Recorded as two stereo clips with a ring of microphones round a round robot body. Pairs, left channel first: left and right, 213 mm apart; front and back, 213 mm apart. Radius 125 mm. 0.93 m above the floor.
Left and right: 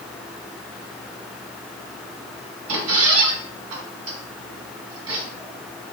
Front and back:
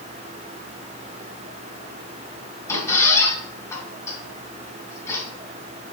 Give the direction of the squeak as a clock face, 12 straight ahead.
3 o'clock.